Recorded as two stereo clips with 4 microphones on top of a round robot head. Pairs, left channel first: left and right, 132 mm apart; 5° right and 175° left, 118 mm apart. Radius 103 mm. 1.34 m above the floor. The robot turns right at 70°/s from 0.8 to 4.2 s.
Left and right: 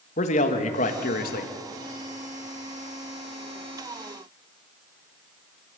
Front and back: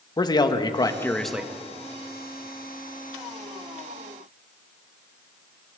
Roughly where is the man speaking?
Ahead left.